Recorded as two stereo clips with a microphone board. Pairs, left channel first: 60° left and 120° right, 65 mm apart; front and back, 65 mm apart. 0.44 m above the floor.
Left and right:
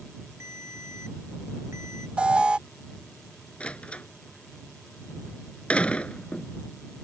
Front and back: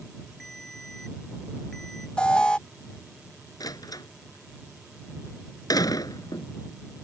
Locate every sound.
0.4 s a ringtone: 85° right
2.2 s an alarm: 60° right
3.6 s a door slam: 10° right